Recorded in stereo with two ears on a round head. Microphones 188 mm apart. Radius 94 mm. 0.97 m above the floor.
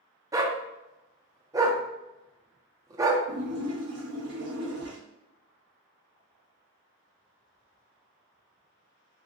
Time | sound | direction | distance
0.3 | a dog barking | 15° right (ahead or behind) | 0.5 m
3.3 | a splash | 60° right (ahead or behind) | 2 m